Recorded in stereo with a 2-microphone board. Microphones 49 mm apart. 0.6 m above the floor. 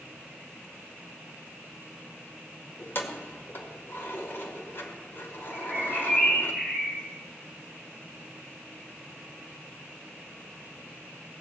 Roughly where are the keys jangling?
Left.